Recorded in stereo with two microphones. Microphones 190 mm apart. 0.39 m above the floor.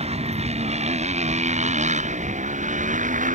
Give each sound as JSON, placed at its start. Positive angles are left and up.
{"t": 0.0, "sound": "a motorcycle", "side_deg": -30}